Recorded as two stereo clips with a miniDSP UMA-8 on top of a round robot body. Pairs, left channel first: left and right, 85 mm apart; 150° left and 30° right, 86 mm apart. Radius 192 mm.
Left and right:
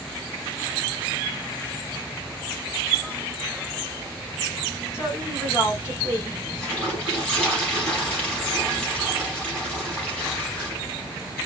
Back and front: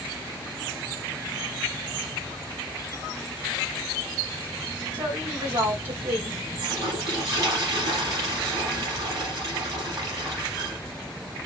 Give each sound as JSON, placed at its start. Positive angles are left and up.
{"t": 4.9, "sound": "a woman speaking", "azimuth_deg": 30, "distance_m": 4.0}
{"t": 6.6, "sound": "a toilet flushing", "azimuth_deg": 15, "distance_m": 4.5}